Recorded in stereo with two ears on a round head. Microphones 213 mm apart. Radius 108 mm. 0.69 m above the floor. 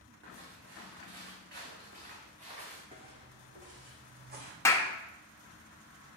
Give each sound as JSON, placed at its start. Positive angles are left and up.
{"t": 0.2, "sound": "footsteps", "side_deg": -60, "distance_m": 3.5}
{"t": 2.9, "sound": "footsteps", "side_deg": -25, "distance_m": 2.5}
{"t": 4.7, "sound": "a clap", "side_deg": 10, "distance_m": 0.8}